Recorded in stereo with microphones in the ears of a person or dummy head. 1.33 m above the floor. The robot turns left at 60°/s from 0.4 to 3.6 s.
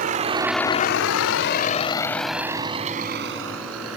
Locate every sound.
0.0 s a vehicle: 45° right (ahead or behind); by 4.0 s 90° right